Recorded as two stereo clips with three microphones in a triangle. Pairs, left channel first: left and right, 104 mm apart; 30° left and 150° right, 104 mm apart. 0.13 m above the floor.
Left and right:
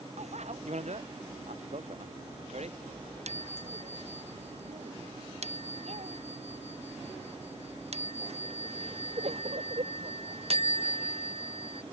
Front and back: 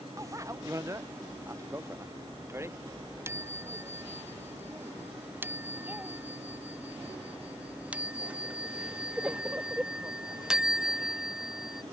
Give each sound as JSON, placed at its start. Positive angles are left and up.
{"t": 0.2, "sound": "a bicycle bell", "azimuth_deg": -90}